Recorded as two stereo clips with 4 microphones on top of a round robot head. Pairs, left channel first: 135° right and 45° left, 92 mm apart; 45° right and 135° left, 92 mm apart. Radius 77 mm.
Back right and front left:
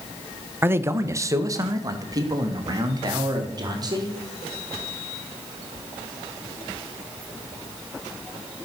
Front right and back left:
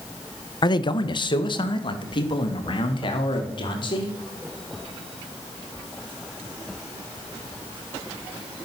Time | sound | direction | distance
0.6 | a man speaking | 20° right | 1.0 m